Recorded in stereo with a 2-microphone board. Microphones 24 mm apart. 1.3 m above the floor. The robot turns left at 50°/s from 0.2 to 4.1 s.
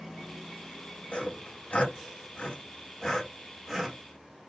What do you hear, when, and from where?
1.1 s sawing: 55° left (ahead or behind), 1.8 m; by 4.0 s 20° right (ahead or behind), 1.8 m